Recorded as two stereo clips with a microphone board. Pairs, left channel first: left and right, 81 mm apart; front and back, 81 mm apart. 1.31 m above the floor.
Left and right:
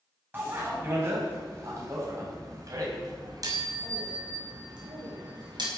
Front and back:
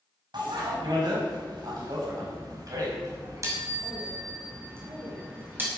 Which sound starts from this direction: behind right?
A bicycle bell, at 0.3 s.